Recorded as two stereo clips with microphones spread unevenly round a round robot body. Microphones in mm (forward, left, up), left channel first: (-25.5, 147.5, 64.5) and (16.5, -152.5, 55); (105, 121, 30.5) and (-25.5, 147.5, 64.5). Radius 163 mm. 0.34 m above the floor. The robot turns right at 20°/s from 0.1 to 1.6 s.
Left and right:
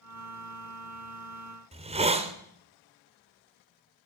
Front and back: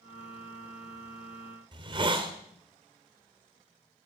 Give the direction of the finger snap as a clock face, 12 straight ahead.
I don't hear a finger snap.